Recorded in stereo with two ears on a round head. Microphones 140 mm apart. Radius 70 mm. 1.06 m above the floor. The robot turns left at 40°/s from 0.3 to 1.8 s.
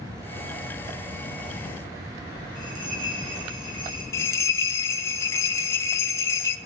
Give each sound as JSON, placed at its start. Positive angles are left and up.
{"t": 2.5, "sound": "a bell", "side_deg": -30, "distance_m": 5.0}
{"t": 4.1, "sound": "a bell", "side_deg": 15, "distance_m": 0.6}